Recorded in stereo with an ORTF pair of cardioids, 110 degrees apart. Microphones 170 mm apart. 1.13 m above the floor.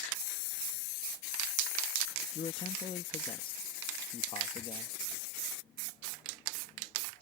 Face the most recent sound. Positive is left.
turn(degrees=30)